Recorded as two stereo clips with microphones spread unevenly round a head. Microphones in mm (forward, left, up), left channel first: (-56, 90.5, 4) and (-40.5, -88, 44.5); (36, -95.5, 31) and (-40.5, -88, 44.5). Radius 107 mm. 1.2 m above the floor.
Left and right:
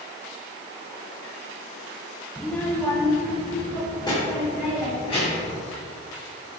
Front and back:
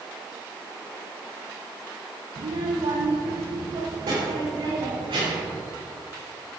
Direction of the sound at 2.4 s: 170° right.